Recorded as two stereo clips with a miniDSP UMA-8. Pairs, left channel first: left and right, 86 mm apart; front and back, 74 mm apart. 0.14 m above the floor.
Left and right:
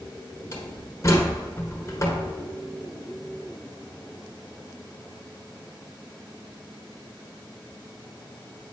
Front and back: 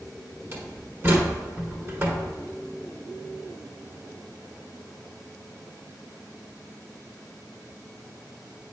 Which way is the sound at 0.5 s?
130° left.